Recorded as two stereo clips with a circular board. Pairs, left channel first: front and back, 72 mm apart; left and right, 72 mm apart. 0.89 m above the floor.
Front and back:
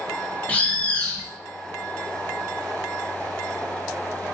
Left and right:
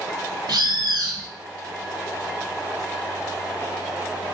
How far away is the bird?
About 0.6 m.